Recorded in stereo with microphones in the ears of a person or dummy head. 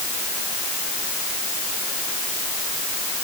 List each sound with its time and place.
Only background noise.